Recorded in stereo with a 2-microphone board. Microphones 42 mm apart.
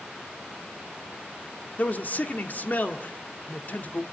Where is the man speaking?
40° left (ahead or behind), 1.8 m.